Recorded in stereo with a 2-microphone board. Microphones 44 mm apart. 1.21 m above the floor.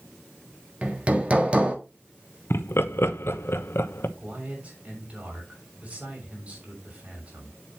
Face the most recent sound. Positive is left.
turn(degrees=-35)  # may be behind; listen again after turning